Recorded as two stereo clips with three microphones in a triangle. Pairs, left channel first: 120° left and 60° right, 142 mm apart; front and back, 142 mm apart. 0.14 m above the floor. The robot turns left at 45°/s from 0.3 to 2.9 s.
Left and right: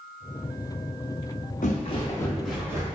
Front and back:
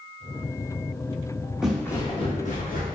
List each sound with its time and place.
1.6 s footsteps: 95° left, 1.0 m; by 3.0 s straight ahead, 1.6 m